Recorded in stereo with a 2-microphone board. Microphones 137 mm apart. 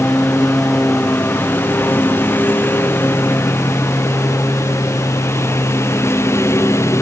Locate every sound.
0.0 s a lawn mower: 10° left (ahead or behind); by 7.0 s 20° left (ahead or behind)